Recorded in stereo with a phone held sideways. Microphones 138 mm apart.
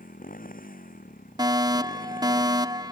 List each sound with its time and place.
0.0 s a motorcycle: 85° left
1.4 s a fire alarm: 30° right (ahead or behind)